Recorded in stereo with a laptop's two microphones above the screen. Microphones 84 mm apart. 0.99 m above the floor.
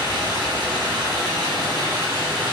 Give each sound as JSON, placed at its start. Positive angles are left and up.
{"t": 0.0, "sound": "running water", "side_deg": -60, "distance_m": 1.2}